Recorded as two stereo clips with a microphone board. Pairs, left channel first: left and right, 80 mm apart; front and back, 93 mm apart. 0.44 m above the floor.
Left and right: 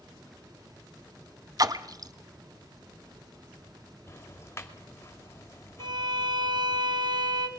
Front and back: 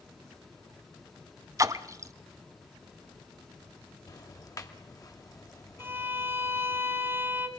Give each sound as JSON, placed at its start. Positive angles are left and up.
{"t": 1.6, "sound": "a splash", "azimuth_deg": -125, "distance_m": 0.9}
{"t": 4.1, "sound": "ticking", "azimuth_deg": 40, "distance_m": 2.0}
{"t": 5.8, "sound": "a violin", "azimuth_deg": -115, "distance_m": 1.9}